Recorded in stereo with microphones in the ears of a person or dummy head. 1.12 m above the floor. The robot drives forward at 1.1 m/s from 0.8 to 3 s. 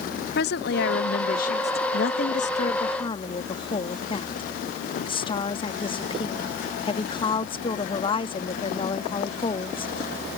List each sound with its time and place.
0.3 s a woman speaking: 55° left (ahead or behind); by 1.8 s 35° left (ahead or behind)
1.9 s a woman speaking: 60° left (ahead or behind); by 9.9 s 30° left (ahead or behind)